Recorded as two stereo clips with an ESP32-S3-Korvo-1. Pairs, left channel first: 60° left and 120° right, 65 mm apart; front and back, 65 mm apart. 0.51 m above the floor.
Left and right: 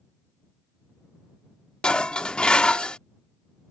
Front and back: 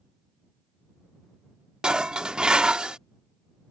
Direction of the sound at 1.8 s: 120° left.